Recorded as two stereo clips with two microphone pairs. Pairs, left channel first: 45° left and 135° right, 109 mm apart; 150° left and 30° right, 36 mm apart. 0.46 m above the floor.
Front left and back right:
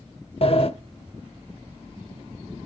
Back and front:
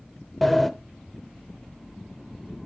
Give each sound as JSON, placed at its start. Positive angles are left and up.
{"t": 0.4, "sound": "a sliding door", "azimuth_deg": 65, "distance_m": 0.8}